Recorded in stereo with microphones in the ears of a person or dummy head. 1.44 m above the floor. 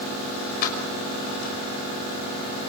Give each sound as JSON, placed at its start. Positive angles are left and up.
{"t": 0.6, "sound": "keys jangling", "side_deg": 55, "distance_m": 5.5}